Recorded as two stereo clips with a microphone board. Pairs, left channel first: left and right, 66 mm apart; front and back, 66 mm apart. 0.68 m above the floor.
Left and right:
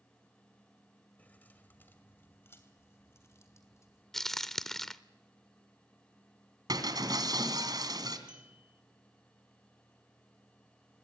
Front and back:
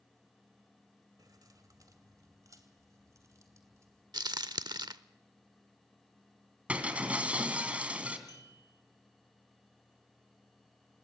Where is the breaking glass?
110° right, 3 m.